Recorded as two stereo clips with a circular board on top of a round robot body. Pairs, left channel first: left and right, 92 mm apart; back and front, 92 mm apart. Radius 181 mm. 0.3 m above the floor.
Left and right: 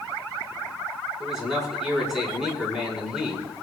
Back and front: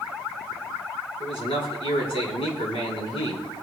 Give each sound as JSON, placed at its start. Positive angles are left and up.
{"t": 1.2, "sound": "a man speaking", "azimuth_deg": -175, "distance_m": 4.5}